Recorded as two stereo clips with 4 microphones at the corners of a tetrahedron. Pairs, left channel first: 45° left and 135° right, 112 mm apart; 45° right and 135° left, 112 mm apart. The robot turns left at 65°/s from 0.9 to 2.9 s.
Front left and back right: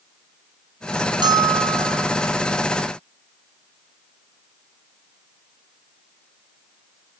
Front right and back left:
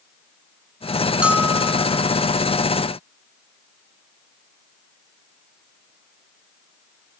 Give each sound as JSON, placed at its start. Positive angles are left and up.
{"t": 1.2, "sound": "a bell", "azimuth_deg": -150, "distance_m": 1.2}